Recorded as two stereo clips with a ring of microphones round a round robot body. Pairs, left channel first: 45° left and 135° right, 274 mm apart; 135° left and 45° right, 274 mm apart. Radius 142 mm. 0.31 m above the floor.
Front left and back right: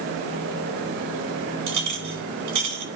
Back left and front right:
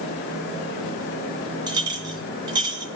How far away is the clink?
About 2.5 m.